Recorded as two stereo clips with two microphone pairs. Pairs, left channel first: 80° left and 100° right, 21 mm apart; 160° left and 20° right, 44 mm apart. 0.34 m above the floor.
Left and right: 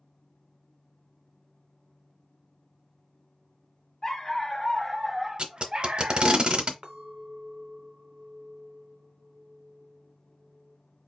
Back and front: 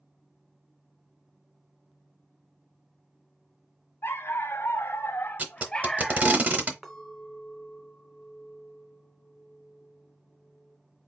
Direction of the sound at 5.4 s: 70° right.